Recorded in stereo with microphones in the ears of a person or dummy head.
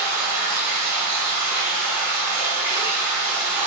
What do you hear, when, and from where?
0.0 s running water: 10° right (ahead or behind), 0.7 m